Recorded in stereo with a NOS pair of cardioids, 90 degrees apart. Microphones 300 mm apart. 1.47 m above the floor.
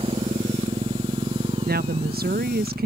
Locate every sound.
0.0 s a motorcycle: 20° right
1.6 s a woman speaking: 30° right